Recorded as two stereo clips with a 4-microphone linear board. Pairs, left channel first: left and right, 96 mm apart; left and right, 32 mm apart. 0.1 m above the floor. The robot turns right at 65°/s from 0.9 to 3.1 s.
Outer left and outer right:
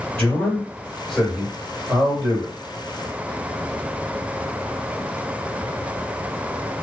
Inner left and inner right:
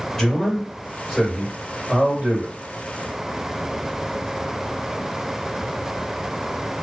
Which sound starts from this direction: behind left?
A man speaking, at 0.2 s.